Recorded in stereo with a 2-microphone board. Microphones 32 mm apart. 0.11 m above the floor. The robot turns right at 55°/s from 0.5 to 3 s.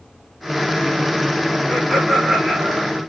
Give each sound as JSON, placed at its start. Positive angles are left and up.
{"t": 1.7, "sound": "laughter", "azimuth_deg": 150, "distance_m": 7.5}